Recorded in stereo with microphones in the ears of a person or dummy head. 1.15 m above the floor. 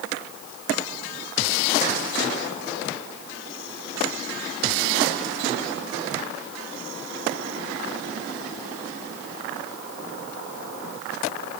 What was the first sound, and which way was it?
Only background noise.